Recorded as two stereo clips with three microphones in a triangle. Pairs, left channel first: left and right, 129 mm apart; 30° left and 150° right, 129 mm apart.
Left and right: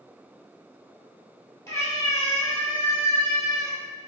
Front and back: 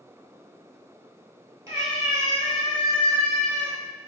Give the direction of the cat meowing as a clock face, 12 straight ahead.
7 o'clock.